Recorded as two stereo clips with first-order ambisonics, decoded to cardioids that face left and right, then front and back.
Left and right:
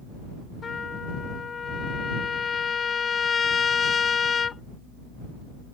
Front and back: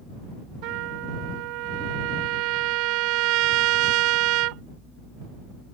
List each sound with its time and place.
0.6 s a trumpet: 160° left